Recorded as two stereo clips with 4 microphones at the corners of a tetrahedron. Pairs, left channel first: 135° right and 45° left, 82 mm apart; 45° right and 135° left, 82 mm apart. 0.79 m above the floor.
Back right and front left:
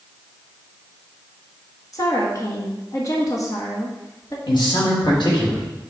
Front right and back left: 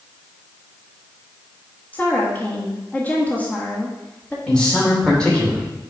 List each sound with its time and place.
1.9 s a woman speaking: 110° right, 1.3 m
4.5 s a man speaking: 125° right, 3 m